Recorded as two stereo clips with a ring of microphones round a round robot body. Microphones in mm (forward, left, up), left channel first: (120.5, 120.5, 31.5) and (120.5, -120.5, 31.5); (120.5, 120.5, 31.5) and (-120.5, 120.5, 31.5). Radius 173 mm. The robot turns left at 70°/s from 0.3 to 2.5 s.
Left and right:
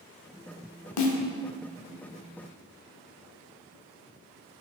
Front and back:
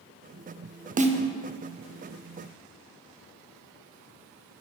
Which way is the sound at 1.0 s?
120° left.